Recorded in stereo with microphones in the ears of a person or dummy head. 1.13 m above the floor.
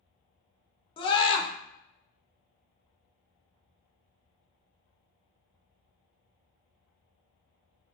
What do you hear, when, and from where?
1.0 s a scream: 25° left (ahead or behind), 0.7 m